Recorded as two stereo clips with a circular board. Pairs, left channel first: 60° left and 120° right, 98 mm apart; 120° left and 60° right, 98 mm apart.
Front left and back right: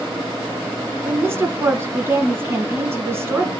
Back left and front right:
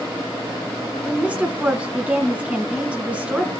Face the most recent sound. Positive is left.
turn(degrees=-120)